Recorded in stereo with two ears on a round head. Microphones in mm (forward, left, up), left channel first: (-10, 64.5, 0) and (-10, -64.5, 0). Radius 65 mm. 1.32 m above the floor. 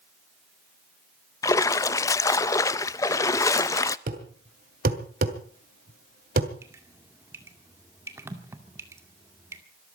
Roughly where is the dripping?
Centre.